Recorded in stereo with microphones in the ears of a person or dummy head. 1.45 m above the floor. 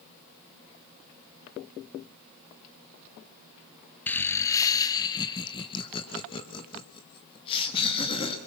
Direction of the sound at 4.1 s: 10° left (ahead or behind).